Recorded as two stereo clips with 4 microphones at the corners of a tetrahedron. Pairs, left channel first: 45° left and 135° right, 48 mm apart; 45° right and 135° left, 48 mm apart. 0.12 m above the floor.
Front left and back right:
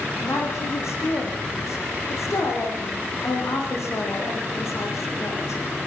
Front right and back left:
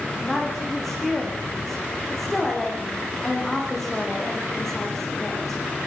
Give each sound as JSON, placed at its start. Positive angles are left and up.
{"t": 0.2, "sound": "a woman speaking", "azimuth_deg": 40, "distance_m": 9.0}